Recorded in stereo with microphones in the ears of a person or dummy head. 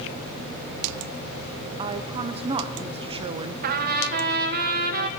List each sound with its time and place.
1.8 s a woman speaking: 25° right (ahead or behind), 1.0 m
3.6 s a trumpet: 50° right (ahead or behind), 1.5 m